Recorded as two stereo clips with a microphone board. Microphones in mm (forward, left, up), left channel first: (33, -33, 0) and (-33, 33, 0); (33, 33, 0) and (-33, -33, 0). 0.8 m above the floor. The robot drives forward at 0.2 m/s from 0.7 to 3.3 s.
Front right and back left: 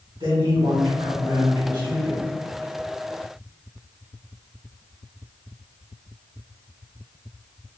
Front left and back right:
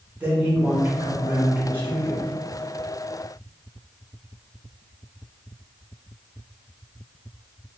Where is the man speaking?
150° left, 2.0 m; by 2.2 s 155° left, 2 m.